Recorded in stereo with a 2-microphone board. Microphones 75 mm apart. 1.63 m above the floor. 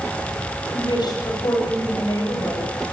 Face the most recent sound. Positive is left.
turn(degrees=50)  # may be behind; listen again after turning